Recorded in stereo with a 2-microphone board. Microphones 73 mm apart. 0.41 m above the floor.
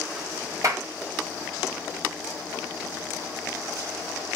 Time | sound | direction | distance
0.6 | a clap | 50° right (ahead or behind) | 1.6 m